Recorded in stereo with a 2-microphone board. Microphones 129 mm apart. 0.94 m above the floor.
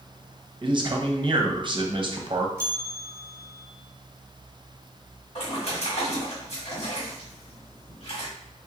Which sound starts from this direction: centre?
A bell, at 2.6 s.